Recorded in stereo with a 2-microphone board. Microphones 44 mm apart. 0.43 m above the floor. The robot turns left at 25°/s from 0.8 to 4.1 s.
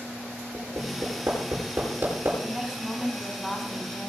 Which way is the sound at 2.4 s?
165° right.